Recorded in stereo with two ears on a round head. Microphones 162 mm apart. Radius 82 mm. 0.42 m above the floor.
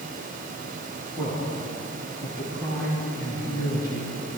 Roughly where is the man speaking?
Centre.